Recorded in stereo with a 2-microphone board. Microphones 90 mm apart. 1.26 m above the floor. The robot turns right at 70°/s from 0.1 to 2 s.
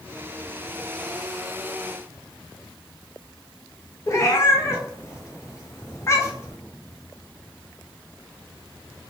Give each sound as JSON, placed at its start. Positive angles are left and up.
{"t": 4.1, "sound": "a cat meowing", "side_deg": 35, "distance_m": 0.7}